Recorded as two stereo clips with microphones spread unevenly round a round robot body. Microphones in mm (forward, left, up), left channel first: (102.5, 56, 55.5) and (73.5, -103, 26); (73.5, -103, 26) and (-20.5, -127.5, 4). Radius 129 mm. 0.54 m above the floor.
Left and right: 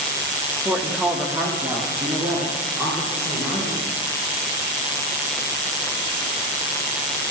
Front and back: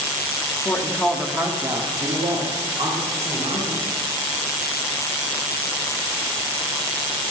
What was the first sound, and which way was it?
A woman speaking, 45° right.